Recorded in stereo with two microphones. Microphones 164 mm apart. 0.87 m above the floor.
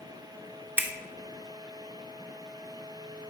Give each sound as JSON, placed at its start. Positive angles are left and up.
{"t": 0.8, "sound": "a finger snap", "side_deg": -10, "distance_m": 0.7}